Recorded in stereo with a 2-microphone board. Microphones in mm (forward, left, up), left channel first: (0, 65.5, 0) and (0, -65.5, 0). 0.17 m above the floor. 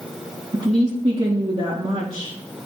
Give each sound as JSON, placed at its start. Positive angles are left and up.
{"t": 0.5, "sound": "a woman speaking", "side_deg": -50, "distance_m": 3.5}